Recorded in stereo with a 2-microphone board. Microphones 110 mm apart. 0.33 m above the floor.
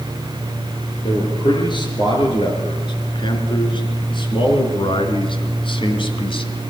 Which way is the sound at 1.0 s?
45° left (ahead or behind).